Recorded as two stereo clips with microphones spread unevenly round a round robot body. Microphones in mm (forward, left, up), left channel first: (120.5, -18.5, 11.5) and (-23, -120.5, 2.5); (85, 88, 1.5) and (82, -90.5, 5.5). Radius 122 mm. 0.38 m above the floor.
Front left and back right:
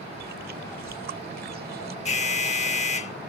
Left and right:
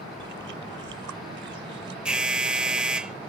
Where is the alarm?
5° right.